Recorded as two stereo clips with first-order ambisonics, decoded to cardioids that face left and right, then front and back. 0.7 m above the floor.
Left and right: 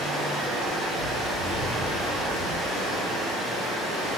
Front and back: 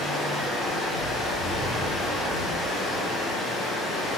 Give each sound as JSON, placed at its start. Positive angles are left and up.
{"t": 0.0, "sound": "running water", "azimuth_deg": -80, "distance_m": 1.5}